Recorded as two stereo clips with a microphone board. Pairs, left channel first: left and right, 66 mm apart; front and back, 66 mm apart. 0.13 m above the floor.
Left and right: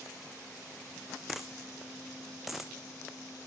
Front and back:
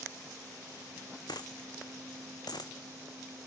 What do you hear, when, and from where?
1.3 s a dropped coin: 5° right, 1.1 m